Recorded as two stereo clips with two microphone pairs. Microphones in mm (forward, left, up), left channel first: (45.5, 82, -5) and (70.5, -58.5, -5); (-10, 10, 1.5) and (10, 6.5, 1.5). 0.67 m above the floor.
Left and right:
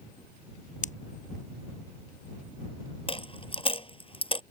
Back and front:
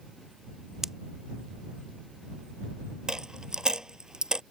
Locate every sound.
0.8 s a pop: 60° left
3.1 s a dropped coin: 45° left